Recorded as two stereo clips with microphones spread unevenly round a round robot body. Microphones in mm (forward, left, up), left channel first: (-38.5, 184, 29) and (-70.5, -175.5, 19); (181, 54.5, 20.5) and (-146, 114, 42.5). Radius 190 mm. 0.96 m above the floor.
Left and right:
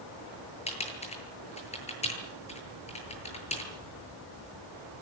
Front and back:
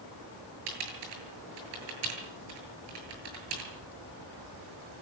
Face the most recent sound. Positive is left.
turn(degrees=160)